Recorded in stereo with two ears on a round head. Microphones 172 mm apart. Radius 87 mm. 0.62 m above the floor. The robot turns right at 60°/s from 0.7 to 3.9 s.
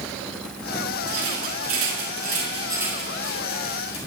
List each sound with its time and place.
1.1 s a rattle: 60° right (ahead or behind), 7.5 m; by 4.0 s 50° left (ahead or behind), 7.5 m